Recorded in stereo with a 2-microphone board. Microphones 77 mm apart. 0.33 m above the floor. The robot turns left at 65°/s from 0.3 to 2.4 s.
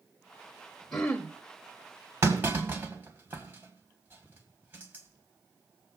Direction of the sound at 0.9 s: 5° left (ahead or behind).